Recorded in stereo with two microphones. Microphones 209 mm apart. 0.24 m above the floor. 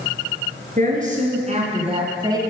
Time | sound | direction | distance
0.8 | a woman speaking | 40° right (ahead or behind) | 3.5 m